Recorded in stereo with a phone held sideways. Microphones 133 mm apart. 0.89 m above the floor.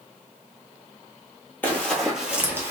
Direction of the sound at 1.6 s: 15° left (ahead or behind).